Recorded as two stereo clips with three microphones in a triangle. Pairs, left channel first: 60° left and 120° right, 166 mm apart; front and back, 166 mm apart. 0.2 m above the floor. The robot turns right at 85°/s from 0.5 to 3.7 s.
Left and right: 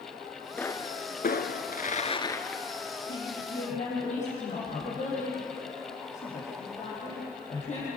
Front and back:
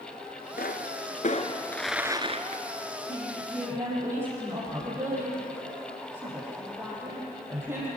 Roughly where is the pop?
Ahead.